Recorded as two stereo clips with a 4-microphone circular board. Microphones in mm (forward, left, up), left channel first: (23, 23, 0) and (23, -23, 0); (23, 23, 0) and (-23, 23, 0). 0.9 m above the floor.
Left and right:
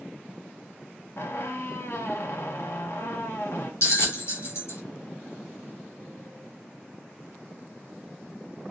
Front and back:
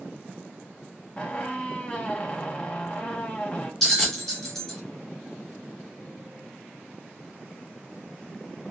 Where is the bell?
80° left, 2.0 m.